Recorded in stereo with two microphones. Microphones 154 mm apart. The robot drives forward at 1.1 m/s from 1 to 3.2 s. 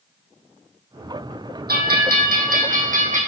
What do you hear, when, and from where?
1.7 s a bell: 80° right, 2.5 m; by 3.2 s 50° right (ahead or behind), 3 m